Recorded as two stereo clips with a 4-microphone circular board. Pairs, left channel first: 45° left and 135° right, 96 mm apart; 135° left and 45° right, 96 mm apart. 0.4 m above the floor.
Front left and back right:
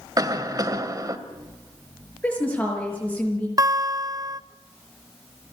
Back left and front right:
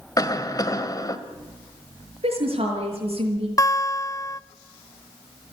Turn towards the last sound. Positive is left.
turn(degrees=-175)